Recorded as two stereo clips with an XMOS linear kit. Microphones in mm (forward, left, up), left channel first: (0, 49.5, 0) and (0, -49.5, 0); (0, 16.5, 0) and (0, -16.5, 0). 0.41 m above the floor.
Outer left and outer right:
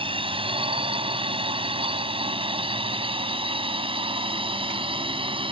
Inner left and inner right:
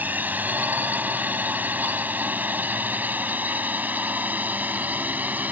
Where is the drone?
65° right (ahead or behind); by 5.5 s 60° right (ahead or behind).